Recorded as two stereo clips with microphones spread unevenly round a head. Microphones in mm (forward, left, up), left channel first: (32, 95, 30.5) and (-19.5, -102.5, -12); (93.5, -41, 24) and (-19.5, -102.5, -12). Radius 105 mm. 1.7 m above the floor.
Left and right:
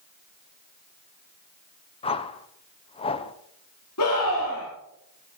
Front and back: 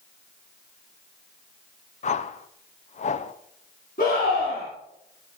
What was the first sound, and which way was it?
A whoosh, 15° left.